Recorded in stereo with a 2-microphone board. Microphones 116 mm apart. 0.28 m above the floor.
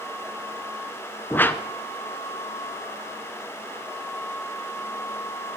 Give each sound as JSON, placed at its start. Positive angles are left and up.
{"t": 1.3, "sound": "a whoosh", "side_deg": 20, "distance_m": 0.5}